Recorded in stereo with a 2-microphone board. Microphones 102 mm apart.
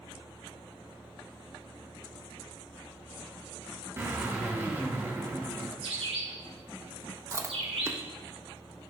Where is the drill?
25° right (ahead or behind), 3.5 m.